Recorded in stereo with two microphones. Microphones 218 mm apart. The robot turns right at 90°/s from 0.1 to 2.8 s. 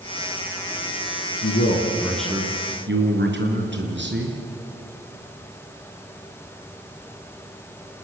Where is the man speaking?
105° left, 4.5 m; by 4.4 s 130° right, 4.5 m.